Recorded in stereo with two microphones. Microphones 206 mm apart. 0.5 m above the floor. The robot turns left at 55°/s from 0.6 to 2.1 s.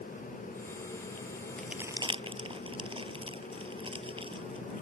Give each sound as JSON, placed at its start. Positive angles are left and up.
{"t": 1.6, "sound": "crumpling", "side_deg": 5}